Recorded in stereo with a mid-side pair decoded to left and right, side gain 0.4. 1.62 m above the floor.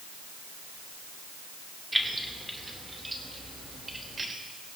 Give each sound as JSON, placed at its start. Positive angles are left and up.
{"t": 1.9, "sound": "keys jangling", "azimuth_deg": -10, "distance_m": 2.5}